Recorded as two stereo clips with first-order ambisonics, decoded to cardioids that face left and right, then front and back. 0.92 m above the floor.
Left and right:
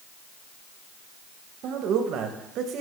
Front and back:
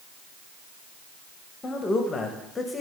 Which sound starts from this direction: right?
A man speaking, at 1.6 s.